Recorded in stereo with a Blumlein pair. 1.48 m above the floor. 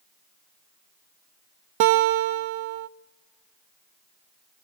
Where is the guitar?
45° right, 0.6 m.